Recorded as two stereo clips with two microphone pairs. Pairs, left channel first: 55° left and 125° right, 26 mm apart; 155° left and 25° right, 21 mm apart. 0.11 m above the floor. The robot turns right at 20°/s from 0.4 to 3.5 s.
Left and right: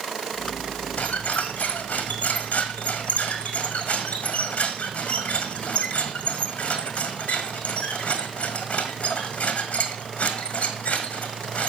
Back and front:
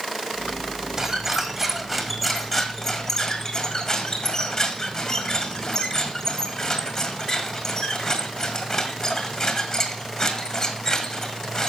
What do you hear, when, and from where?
1.0 s a squeak: 45° left, 1.7 m; by 11.7 s 95° left, 1.7 m